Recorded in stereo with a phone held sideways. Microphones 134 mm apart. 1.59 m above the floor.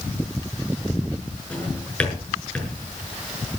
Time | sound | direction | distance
1.5 | a drawer | 10° left (ahead or behind) | 6.5 m